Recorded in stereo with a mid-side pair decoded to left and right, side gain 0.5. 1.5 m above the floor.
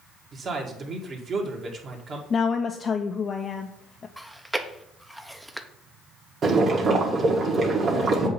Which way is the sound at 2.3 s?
40° left.